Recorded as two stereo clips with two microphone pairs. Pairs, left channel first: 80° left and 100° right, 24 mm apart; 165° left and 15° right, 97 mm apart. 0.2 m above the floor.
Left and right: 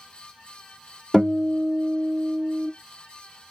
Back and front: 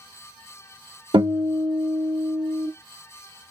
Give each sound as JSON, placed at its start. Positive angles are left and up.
{"t": 1.1, "sound": "a guitar", "azimuth_deg": -20, "distance_m": 1.8}